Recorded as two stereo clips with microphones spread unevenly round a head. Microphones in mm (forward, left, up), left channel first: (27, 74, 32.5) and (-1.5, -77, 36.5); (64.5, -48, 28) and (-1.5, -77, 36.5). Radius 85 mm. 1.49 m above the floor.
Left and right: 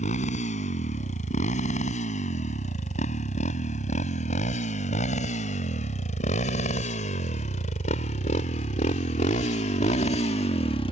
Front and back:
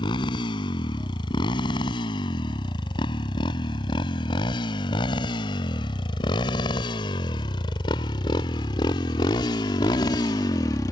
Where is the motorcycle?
40° left; by 10.9 s 45° left.